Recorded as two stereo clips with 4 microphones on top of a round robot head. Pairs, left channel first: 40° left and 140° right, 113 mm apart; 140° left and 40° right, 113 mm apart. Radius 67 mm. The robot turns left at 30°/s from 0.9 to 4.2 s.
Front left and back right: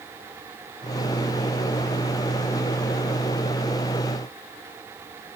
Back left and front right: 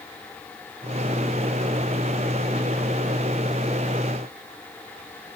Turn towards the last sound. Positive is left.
No sound to turn to.